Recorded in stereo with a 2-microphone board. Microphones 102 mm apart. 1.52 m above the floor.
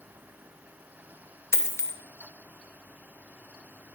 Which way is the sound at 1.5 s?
25° left (ahead or behind).